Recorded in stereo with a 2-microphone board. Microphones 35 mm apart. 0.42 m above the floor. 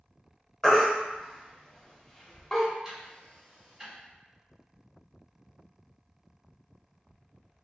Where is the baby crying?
20° left (ahead or behind), 0.6 m.